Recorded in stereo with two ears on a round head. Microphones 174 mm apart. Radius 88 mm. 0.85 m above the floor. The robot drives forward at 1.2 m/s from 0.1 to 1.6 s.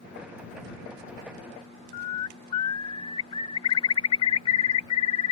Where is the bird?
30° left (ahead or behind).